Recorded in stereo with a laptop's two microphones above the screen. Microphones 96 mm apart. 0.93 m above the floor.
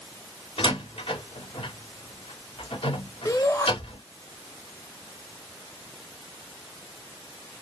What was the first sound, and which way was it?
A door slam, 65° left (ahead or behind).